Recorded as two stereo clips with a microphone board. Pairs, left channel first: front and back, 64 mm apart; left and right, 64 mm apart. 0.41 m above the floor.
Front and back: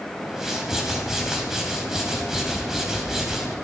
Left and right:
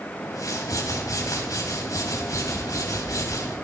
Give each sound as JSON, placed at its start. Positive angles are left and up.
{"t": 0.2, "sound": "a whoosh", "azimuth_deg": 100, "distance_m": 3.0}